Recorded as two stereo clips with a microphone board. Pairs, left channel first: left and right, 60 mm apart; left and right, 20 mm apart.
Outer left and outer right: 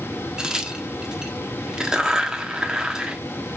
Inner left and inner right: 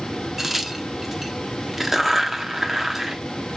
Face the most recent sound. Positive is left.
turn(degrees=-10)  # may be behind; listen again after turning